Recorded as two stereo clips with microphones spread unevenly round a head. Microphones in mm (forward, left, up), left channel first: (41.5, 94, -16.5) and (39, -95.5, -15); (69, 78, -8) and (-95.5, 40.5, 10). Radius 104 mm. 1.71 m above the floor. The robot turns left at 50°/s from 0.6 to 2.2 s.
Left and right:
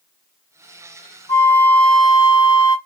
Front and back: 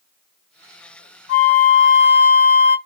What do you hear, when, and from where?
1.3 s a flute: 25° left, 1.8 m; by 2.8 s 20° right, 1.8 m